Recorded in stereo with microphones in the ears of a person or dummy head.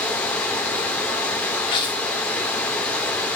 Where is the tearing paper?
20° left (ahead or behind), 1.1 m.